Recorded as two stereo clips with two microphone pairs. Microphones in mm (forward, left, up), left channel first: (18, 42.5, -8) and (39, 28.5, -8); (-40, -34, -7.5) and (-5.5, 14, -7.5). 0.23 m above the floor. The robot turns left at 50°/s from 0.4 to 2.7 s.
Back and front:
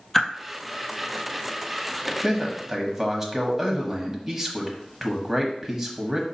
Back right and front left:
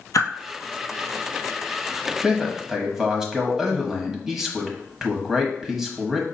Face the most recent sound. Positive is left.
turn(degrees=-15)